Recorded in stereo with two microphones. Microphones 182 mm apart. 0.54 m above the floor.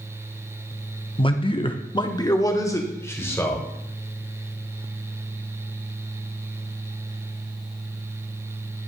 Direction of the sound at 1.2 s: 25° left (ahead or behind).